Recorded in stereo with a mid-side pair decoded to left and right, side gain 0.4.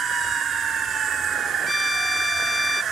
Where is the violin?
20° left.